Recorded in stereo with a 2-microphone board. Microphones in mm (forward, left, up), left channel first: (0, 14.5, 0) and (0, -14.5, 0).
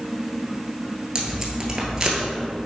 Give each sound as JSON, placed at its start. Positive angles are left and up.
{"t": 1.1, "sound": "tape being pulled", "side_deg": -20, "distance_m": 1.3}